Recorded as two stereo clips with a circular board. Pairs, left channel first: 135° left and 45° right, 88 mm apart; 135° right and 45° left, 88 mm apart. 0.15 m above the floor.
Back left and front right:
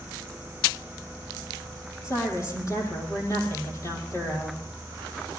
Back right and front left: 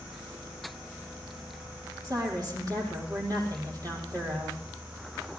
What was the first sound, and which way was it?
A woman speaking, 85° left.